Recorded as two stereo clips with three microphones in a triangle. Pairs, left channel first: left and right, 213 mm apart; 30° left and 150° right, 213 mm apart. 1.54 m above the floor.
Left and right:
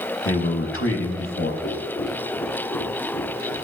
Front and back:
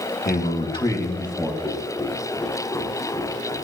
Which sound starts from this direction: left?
A man speaking, at 0.2 s.